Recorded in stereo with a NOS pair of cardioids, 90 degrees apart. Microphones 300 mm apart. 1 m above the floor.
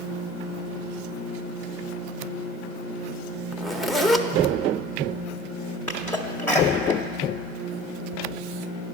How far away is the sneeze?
About 0.6 m.